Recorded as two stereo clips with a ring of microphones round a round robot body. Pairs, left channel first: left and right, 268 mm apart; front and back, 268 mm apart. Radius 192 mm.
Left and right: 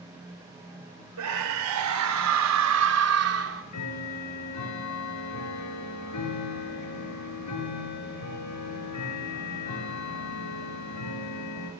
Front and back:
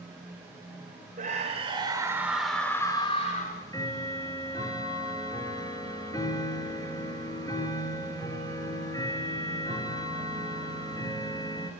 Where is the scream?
110° right, 3.5 m; by 3.6 s 60° right, 2.5 m.